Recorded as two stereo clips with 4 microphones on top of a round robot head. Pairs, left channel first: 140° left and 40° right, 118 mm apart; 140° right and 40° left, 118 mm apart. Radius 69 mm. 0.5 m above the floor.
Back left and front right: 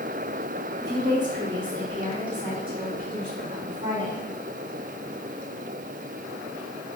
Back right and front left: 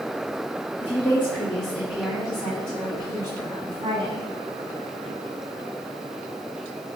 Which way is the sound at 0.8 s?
85° right.